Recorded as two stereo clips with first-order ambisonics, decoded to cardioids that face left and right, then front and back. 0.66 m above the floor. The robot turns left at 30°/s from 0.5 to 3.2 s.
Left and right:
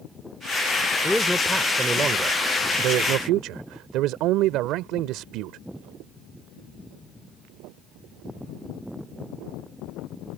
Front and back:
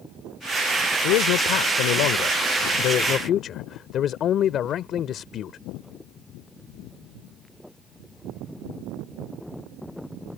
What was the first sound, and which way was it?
A man speaking, 10° left.